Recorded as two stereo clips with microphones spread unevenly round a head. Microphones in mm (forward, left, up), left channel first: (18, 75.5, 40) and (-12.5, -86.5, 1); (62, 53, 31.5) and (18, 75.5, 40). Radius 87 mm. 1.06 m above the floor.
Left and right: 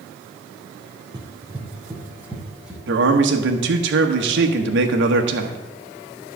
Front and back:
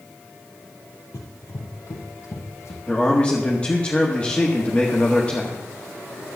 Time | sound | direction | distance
1.1 | running footsteps | 30° right | 1.8 m
2.9 | a man speaking | 105° right | 1.5 m